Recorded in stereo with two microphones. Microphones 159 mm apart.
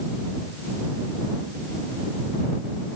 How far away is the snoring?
I don't hear snoring.